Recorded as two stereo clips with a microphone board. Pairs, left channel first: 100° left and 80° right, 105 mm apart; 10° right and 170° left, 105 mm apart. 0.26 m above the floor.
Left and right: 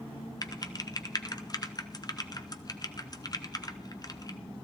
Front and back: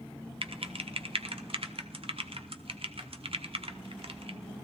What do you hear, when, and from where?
0.4 s typing on a keyboard: 145° left, 0.7 m